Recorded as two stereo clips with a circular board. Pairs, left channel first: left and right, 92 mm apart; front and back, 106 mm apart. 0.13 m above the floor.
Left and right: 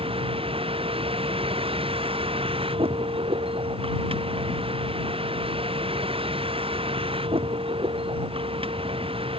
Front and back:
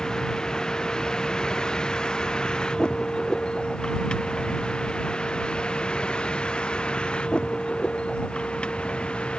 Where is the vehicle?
85° right; by 9.4 s 80° right.